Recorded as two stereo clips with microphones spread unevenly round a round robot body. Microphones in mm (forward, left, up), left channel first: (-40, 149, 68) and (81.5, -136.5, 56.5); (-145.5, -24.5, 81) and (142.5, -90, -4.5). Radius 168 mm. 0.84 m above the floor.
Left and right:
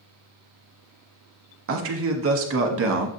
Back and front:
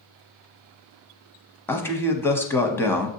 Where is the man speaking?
100° right, 0.7 m.